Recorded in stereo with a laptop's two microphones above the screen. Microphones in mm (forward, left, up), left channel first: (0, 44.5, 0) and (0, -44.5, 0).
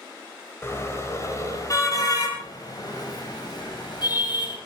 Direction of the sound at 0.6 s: 30° left (ahead or behind).